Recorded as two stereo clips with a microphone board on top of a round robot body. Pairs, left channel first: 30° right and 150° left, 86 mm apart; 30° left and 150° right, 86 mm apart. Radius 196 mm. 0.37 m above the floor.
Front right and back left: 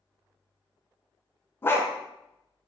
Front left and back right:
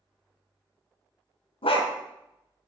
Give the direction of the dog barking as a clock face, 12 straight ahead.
11 o'clock.